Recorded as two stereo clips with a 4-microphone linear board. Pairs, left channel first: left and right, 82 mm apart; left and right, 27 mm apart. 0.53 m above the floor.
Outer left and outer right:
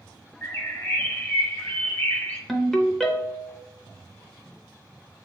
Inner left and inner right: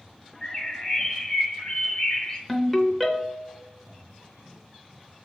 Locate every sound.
0.4 s a bird: 25° left (ahead or behind), 0.7 m
2.5 s a ringtone: 5° left (ahead or behind), 0.6 m